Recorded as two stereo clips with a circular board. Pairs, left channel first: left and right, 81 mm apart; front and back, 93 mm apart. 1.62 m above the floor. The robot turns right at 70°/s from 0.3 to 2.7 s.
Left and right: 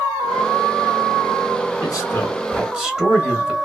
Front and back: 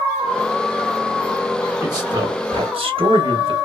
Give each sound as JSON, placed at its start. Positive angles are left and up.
{"t": 1.8, "sound": "a man speaking", "azimuth_deg": 125, "distance_m": 1.2}